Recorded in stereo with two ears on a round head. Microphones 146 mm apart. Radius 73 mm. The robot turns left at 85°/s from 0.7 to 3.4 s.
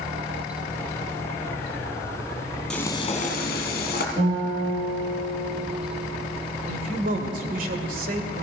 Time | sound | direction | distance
2.7 | frying | 175° left | 2.5 m
4.2 | a guitar | 45° right (ahead or behind) | 7.5 m
6.7 | a man speaking | 55° right (ahead or behind) | 2 m